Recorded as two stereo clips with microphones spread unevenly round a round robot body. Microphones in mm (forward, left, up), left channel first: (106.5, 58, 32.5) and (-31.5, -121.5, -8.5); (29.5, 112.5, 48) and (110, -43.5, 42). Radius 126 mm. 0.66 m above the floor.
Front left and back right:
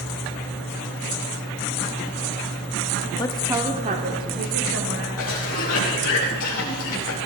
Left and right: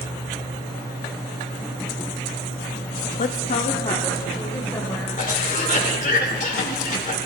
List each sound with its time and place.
3.2 s a woman speaking: 125° left, 0.8 m; by 5.1 s 165° right, 3 m
5.2 s a cough: 80° left, 2.5 m